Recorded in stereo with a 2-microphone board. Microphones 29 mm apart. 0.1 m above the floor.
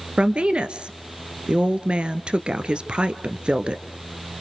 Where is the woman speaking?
40° right (ahead or behind), 1.4 m.